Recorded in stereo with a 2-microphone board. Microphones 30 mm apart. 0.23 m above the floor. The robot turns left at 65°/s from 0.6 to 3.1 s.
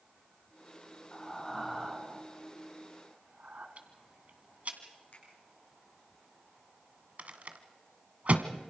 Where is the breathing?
25° left (ahead or behind), 2.5 m; by 3.7 s 55° right (ahead or behind), 2.5 m.